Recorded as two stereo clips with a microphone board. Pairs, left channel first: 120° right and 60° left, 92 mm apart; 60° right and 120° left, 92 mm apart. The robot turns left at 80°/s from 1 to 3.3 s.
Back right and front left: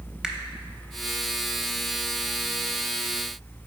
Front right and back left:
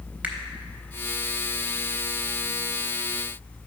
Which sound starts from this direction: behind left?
A finger snap, at 0.2 s.